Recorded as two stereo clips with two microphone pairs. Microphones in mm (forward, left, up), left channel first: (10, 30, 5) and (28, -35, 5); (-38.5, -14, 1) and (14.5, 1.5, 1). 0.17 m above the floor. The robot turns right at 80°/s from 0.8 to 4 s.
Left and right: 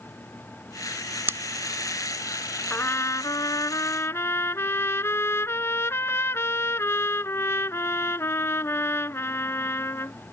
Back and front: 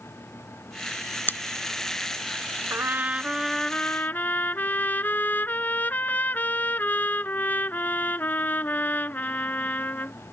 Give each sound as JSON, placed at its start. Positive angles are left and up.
{"t": 1.3, "sound": "scissors", "azimuth_deg": -125}
{"t": 2.7, "sound": "a trumpet", "azimuth_deg": 45}